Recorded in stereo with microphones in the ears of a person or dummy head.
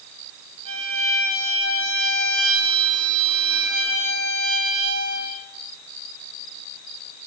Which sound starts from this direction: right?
A violin, at 0.7 s.